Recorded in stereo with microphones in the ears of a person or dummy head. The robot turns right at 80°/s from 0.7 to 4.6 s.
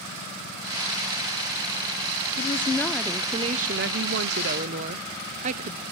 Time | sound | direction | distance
2.4 | a woman speaking | 130° left | 0.6 m